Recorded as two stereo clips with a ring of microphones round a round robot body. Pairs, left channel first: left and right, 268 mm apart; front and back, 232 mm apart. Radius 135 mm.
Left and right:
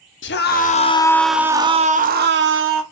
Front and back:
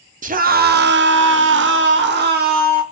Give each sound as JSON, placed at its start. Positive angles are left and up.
{"t": 0.2, "sound": "a scream", "azimuth_deg": 130, "distance_m": 1.0}